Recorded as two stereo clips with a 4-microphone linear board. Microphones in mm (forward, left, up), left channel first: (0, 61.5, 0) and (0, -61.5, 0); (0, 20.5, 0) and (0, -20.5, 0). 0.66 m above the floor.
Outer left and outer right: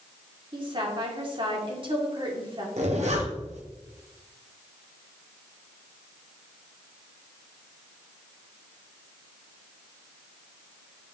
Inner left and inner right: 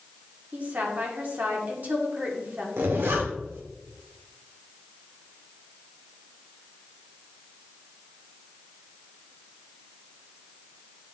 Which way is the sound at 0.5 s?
45° right (ahead or behind).